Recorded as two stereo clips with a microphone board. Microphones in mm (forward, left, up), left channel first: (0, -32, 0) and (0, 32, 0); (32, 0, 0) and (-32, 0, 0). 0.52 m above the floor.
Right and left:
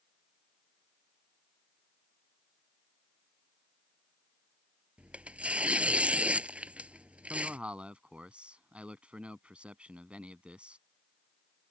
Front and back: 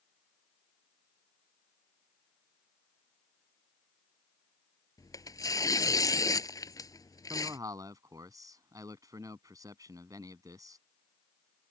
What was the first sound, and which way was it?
Tearing paper, 20° left.